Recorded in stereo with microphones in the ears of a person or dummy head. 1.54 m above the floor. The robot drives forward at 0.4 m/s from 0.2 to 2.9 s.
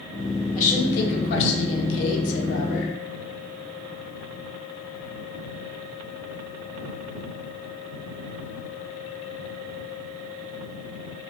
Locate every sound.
0.6 s a woman speaking: 40° left (ahead or behind), 0.9 m; by 2.9 s 60° left (ahead or behind), 0.7 m